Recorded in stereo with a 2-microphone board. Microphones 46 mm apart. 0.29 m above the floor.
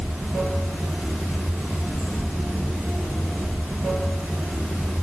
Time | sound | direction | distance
0.0 | running water | 45° right (ahead or behind) | 1.1 m